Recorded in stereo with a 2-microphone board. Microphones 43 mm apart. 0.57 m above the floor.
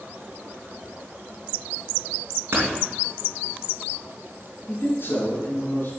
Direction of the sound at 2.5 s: 60° right (ahead or behind).